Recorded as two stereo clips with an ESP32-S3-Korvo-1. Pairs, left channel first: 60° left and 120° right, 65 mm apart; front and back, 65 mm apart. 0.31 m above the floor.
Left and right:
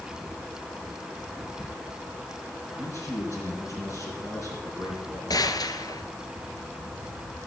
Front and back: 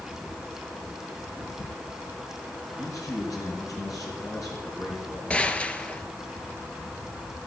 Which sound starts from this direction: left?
A gunshot, at 5.3 s.